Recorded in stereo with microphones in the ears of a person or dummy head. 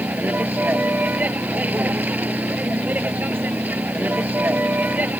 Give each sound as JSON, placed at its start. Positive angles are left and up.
{"t": 0.0, "sound": "a vehicle", "side_deg": -5}